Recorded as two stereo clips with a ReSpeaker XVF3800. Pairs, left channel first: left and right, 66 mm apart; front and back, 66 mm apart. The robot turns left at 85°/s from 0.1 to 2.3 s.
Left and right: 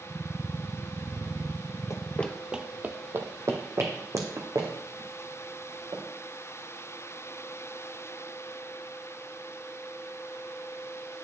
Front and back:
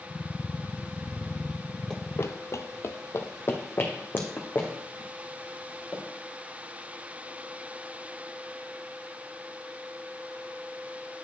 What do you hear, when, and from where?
1.9 s running footsteps: 85° left, 0.6 m; by 6.0 s 60° right, 3.5 m